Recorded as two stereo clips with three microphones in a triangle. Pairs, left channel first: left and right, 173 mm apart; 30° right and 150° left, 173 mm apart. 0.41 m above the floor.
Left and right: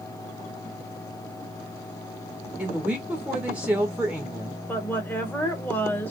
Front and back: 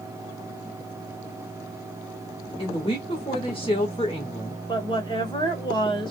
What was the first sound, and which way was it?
A woman speaking, 15° right.